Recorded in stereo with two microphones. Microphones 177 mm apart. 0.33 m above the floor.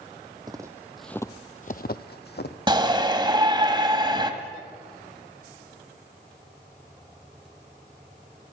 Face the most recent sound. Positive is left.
turn(degrees=-25)  # may be behind; listen again after turning